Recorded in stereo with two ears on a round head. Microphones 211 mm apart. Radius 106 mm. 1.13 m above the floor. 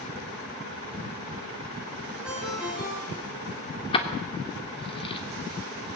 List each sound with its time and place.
2.2 s a ringtone: 5° right (ahead or behind), 7.5 m
3.9 s keys jangling: 25° left (ahead or behind), 2.5 m